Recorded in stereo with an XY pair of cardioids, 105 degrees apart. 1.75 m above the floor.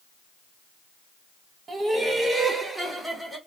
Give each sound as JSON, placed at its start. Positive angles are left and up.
{"t": 1.7, "sound": "laughter", "azimuth_deg": -35, "distance_m": 2.5}